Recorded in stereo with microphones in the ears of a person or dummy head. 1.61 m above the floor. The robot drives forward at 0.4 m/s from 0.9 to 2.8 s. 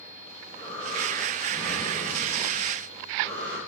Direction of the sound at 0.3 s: 10° left (ahead or behind).